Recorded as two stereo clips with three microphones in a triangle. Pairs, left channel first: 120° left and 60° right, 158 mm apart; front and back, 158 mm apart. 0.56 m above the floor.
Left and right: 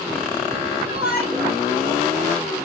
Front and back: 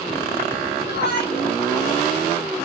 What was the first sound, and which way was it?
A shout, 20° left.